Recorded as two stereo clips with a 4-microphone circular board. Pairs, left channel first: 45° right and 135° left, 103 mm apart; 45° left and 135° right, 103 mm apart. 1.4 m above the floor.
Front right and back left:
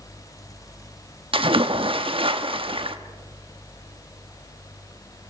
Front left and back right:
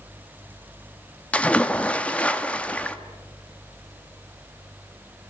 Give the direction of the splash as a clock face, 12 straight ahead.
8 o'clock.